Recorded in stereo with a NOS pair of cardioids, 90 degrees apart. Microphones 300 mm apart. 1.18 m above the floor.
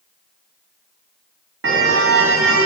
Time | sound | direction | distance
1.6 | a car horn | 45° right | 5 m